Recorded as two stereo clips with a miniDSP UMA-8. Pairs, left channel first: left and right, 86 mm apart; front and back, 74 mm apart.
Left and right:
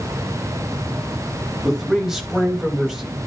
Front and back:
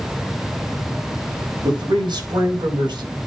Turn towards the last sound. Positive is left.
turn(degrees=-175)